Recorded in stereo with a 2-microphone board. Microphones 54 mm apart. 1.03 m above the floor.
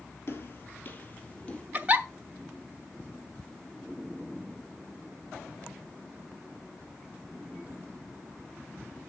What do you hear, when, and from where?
0.3 s footsteps: 50° left (ahead or behind), 1.5 m; by 1.6 s 20° left (ahead or behind), 1.7 m
1.7 s a giggle: 30° right (ahead or behind), 1.0 m